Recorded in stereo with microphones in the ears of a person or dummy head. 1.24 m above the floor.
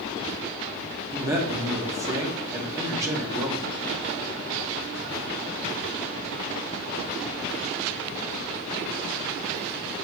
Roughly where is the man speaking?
Centre.